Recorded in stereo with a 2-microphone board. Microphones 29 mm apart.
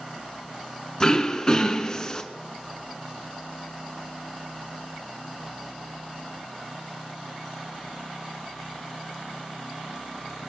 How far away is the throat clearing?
About 1.5 m.